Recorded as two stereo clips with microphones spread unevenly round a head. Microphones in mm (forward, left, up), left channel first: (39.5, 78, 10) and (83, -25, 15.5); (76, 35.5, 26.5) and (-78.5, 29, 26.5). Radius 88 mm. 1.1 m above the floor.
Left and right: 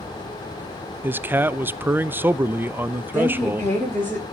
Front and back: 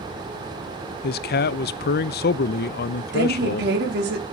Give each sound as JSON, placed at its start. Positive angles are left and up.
{"t": 1.0, "sound": "a man speaking", "azimuth_deg": 5, "distance_m": 0.6}
{"t": 3.1, "sound": "a woman speaking", "azimuth_deg": -170, "distance_m": 3.0}